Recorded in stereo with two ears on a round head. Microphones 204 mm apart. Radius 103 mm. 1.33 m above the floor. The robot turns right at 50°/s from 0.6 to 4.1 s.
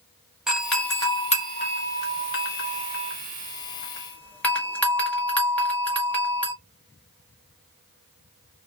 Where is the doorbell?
Centre (ahead or behind), 1.3 m; by 6.5 s 5° left (ahead or behind), 1.3 m.